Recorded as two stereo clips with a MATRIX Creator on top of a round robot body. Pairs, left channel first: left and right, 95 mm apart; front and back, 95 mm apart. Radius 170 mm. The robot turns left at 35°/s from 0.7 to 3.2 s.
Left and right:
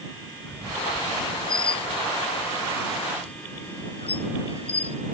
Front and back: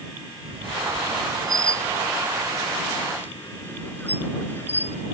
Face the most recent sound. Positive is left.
turn(degrees=70)